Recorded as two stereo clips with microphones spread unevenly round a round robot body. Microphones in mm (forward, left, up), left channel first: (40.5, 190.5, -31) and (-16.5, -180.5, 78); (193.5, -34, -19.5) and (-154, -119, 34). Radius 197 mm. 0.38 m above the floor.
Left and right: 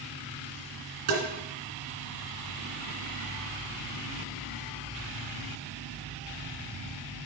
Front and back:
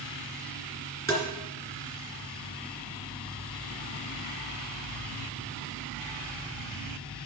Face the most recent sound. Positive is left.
turn(degrees=-70)